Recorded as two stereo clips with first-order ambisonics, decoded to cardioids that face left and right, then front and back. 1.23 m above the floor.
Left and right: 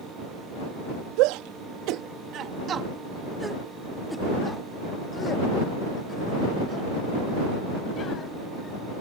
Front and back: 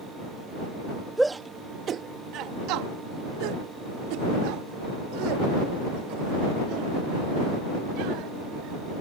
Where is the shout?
95° right; by 8.8 s 155° left.